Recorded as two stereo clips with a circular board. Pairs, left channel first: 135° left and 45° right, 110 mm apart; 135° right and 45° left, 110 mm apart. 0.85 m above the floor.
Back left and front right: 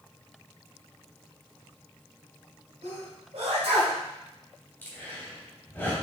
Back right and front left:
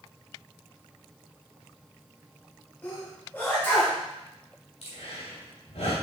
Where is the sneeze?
65° right, 4 m.